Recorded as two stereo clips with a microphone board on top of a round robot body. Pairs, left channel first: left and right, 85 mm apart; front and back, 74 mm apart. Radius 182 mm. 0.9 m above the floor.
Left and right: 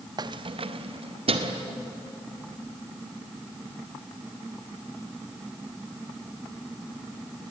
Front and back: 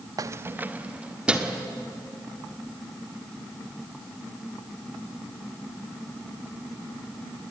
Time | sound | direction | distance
0.2 | keys jangling | 135° right | 0.5 m